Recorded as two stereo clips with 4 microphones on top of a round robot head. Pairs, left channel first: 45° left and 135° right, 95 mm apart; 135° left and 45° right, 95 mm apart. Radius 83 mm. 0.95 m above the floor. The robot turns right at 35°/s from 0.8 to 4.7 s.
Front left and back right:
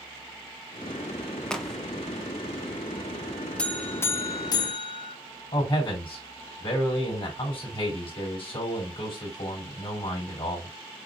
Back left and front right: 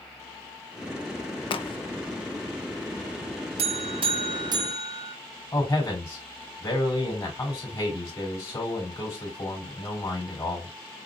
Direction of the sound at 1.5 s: 125° left.